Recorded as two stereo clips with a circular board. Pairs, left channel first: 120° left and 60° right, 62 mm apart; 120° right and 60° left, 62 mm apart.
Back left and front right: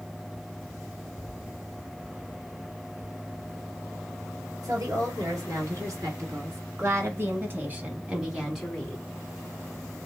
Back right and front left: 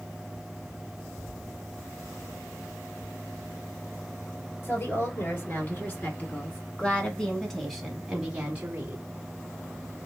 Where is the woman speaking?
75° right, 2.5 m; by 9.0 s 50° left, 1.1 m.